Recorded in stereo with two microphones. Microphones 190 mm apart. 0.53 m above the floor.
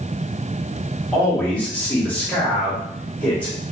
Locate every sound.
1.1 s a man speaking: 5° left (ahead or behind), 1.3 m